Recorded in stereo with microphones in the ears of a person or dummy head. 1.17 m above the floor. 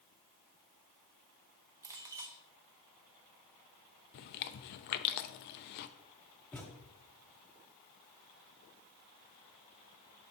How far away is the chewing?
About 0.5 m.